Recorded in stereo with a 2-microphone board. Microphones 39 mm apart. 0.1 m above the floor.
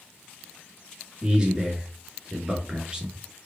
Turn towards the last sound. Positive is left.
turn(degrees=-20)  # may be behind; listen again after turning